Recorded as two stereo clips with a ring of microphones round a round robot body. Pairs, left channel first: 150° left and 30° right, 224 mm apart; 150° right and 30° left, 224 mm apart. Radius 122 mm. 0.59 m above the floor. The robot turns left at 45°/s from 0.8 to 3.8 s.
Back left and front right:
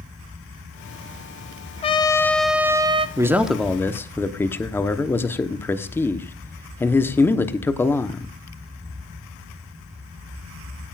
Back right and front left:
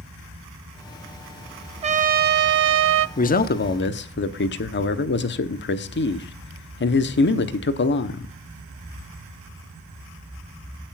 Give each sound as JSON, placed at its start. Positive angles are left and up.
{"t": 1.8, "sound": "a trumpet", "azimuth_deg": 90, "distance_m": 0.7}
{"t": 3.2, "sound": "a man speaking", "azimuth_deg": -105, "distance_m": 1.0}